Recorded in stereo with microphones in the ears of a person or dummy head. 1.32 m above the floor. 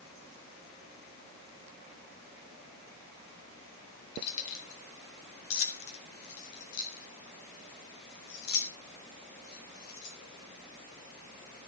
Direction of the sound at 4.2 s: 65° left (ahead or behind).